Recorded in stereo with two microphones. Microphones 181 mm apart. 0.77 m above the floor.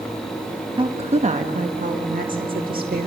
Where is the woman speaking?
30° right (ahead or behind), 1.0 m; by 3.1 s 60° right (ahead or behind), 2 m.